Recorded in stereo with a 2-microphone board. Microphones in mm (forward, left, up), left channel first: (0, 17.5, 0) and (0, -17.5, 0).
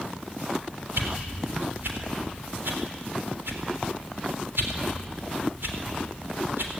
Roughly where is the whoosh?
Right.